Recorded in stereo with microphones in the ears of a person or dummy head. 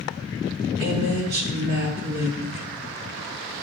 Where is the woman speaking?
60° right (ahead or behind), 3 m.